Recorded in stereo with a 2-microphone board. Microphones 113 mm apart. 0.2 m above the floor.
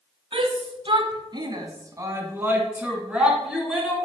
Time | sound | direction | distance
0.3 | a shout | 50° right (ahead or behind) | 1.4 m